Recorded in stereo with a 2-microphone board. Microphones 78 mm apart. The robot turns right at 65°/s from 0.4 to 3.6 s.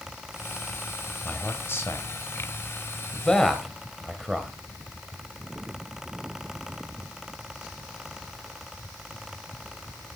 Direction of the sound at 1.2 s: 20° left (ahead or behind).